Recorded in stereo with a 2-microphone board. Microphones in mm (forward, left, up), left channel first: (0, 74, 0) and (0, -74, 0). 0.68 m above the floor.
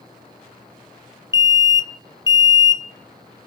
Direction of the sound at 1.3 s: 25° left (ahead or behind).